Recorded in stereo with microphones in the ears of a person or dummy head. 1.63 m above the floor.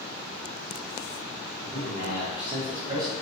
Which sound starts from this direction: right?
A man speaking, at 1.6 s.